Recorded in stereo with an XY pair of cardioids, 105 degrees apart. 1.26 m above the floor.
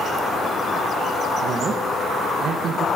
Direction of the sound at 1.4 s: 55° right.